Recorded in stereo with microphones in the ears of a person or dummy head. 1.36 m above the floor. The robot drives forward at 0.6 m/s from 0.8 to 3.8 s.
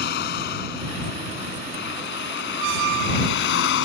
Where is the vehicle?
55° left (ahead or behind); by 3.9 s 65° left (ahead or behind).